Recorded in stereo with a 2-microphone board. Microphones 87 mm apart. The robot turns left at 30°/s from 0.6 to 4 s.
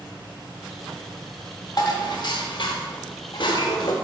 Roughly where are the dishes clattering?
Behind left.